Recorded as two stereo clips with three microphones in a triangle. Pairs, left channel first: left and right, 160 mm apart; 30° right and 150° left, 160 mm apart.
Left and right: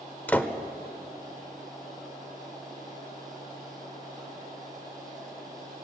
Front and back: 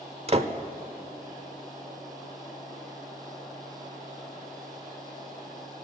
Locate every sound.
0.3 s a door slam: 165° left, 1.0 m